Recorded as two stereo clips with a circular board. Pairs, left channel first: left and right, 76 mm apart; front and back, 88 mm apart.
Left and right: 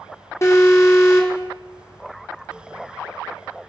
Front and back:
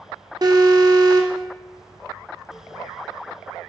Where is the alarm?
140° left, 3 m.